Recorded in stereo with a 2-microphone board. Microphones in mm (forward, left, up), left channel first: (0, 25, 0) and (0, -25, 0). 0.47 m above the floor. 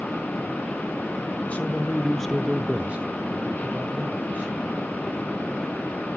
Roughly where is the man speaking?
Left.